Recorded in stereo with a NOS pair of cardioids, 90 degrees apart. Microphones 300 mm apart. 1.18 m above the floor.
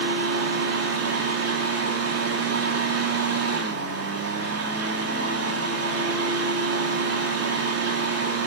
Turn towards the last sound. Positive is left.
turn(degrees=-55)